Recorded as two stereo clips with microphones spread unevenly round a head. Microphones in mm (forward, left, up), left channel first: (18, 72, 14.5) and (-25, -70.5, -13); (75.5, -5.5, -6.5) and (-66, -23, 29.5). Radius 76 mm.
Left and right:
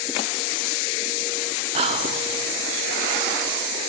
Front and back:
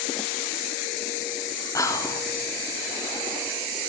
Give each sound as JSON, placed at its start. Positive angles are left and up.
{"t": 1.8, "sound": "whispering", "azimuth_deg": -60, "distance_m": 0.8}